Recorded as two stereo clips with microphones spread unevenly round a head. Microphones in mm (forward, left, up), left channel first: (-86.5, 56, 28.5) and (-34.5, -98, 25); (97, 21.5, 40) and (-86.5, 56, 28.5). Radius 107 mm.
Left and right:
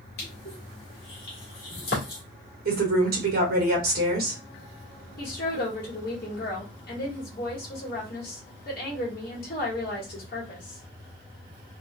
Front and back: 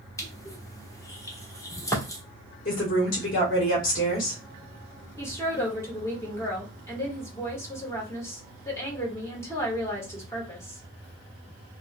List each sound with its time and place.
0.2 s crushing: 60° left, 1.3 m
2.6 s a woman speaking: 55° right, 1.2 m
5.2 s a woman speaking: 65° left, 1.3 m